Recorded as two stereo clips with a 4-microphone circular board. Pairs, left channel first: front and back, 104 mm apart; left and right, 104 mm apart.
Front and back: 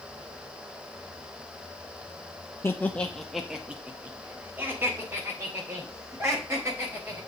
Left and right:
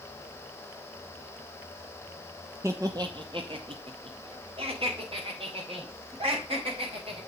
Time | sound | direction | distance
2.6 | laughter | 45° right | 0.7 m